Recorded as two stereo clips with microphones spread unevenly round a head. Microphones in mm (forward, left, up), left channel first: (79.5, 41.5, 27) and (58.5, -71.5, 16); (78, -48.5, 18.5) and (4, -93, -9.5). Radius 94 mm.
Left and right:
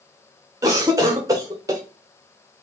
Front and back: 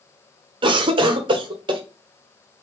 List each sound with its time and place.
0.6 s a cough: 165° right, 0.8 m